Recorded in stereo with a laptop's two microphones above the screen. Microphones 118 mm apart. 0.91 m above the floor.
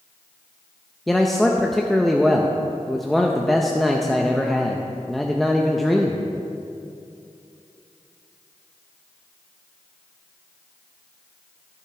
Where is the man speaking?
Centre (ahead or behind), 0.5 m.